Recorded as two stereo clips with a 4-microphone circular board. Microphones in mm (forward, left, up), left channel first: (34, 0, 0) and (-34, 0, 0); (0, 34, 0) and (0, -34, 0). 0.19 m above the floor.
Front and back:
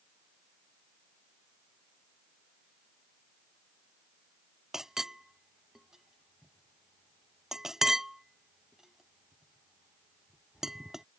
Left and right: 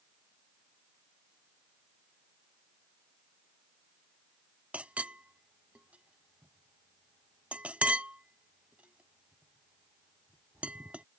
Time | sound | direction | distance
4.7 | a clink | 110° right | ?